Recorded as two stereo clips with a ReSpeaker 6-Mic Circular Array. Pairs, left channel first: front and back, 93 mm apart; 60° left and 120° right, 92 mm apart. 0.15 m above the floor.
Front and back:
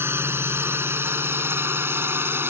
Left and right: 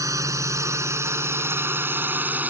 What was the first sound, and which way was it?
A drone, 135° right.